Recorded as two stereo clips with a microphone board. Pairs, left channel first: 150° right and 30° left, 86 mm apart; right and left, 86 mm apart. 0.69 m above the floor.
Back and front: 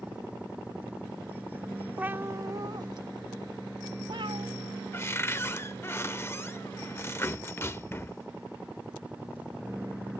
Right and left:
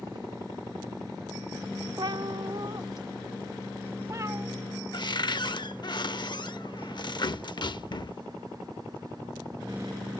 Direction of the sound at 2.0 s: 100° left.